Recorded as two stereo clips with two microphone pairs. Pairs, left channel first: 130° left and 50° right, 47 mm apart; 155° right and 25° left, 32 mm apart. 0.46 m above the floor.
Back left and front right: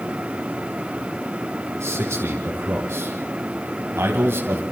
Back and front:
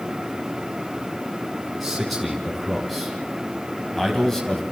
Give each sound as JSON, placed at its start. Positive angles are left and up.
{"t": 1.8, "sound": "a man speaking", "azimuth_deg": -65, "distance_m": 4.0}